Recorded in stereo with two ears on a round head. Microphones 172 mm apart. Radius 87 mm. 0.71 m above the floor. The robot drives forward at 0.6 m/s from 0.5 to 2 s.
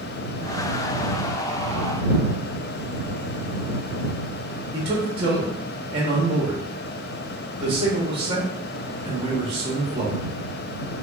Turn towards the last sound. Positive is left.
turn(degrees=-30)  # may be behind; listen again after turning